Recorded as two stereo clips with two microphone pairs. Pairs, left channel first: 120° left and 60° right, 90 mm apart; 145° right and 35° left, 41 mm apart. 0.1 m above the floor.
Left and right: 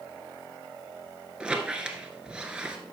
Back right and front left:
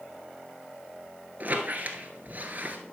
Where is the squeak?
15° left, 1.1 m.